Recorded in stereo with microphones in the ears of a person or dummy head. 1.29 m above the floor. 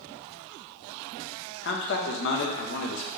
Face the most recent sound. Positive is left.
turn(degrees=50)  # may be behind; listen again after turning